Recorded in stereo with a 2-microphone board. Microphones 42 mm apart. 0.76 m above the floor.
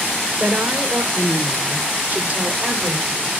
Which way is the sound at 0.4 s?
55° right (ahead or behind).